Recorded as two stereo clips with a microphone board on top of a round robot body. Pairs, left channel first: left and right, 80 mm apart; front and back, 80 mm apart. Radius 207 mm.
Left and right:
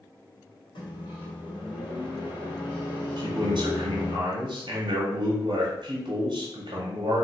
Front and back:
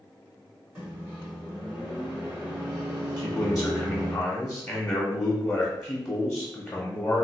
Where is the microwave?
105° left, 1.4 m.